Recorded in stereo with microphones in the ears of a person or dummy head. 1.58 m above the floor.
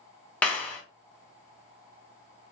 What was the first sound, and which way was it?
A clap, 5° left (ahead or behind).